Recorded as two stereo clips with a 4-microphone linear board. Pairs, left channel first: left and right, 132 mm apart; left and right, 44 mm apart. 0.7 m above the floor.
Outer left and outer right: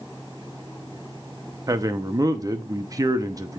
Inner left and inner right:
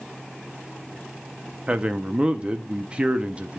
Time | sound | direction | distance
1.7 | a man speaking | 25° right (ahead or behind) | 0.7 m